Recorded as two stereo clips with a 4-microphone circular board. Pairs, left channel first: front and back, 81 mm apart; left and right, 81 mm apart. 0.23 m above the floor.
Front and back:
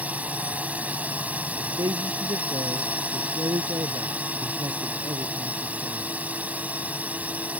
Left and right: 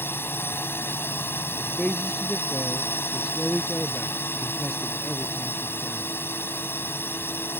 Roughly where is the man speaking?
Behind.